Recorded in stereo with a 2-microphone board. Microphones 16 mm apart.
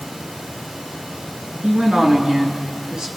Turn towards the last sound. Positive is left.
turn(degrees=-70)  # may be behind; listen again after turning